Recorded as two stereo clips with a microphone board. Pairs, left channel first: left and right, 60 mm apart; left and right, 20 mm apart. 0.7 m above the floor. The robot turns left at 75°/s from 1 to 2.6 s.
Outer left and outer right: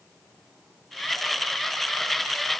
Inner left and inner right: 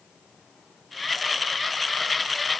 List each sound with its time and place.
Only background noise.